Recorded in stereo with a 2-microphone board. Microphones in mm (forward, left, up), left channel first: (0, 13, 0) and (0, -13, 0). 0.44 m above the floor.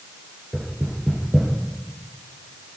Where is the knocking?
20° right (ahead or behind), 8 m.